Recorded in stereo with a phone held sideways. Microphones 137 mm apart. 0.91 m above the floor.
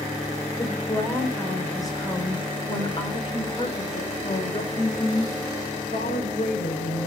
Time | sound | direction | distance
0.6 | a woman speaking | 15° left (ahead or behind) | 4.5 m